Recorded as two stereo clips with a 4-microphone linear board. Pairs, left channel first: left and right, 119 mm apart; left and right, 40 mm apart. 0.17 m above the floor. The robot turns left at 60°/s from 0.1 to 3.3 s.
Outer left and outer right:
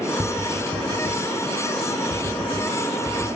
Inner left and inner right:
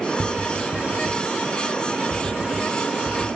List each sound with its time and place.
0.2 s tapping: 25° right (ahead or behind), 1.9 m; by 3.4 s 30° left (ahead or behind), 1.9 m